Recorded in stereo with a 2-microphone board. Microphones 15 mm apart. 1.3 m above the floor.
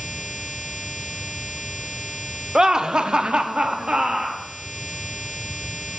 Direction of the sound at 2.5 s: 40° right (ahead or behind).